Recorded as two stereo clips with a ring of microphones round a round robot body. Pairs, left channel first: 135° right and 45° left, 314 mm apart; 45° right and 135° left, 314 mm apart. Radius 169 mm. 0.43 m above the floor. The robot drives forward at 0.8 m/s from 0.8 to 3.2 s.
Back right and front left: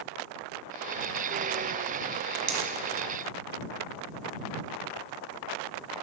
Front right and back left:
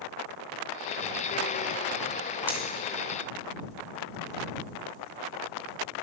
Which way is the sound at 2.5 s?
50° left.